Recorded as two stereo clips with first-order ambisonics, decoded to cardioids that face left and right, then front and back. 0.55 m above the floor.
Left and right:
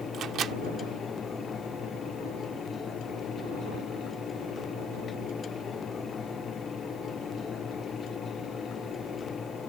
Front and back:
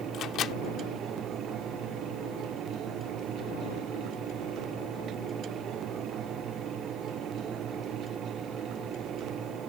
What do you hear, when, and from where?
0.1 s a microwave: 40° right